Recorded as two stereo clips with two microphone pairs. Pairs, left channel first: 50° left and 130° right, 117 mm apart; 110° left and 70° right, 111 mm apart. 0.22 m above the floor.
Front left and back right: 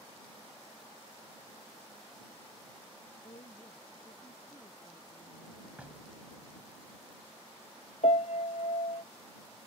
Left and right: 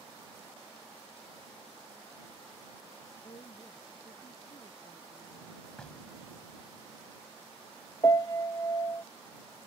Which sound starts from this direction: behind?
Knocking, at 5.8 s.